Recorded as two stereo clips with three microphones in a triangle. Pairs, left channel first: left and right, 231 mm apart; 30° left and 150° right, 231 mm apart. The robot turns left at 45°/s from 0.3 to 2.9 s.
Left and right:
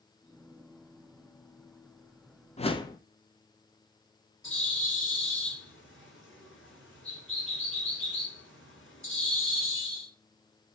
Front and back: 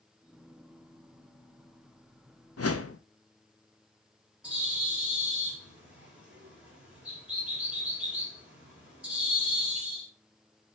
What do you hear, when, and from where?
2.6 s a whoosh: 30° left, 0.7 m; by 3.0 s 15° left, 0.7 m
4.4 s a bird: 125° left, 3 m